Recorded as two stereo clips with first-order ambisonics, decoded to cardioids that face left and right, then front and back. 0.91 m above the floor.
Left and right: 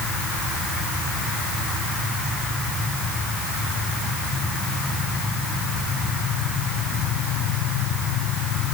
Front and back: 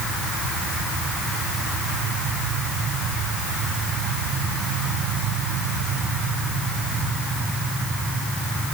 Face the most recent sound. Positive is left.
No sound to turn to.